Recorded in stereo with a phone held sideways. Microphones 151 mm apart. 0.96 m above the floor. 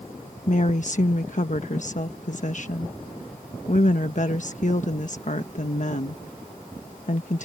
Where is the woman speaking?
55° left (ahead or behind).